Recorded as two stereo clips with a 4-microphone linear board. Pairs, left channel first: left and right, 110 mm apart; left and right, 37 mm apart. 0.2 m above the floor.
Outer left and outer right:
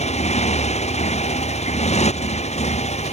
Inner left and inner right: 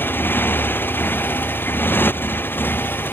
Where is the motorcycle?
85° left.